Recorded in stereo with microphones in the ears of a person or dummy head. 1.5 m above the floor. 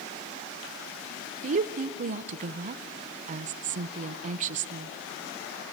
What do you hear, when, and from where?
1.4 s a woman speaking: 45° right (ahead or behind), 0.6 m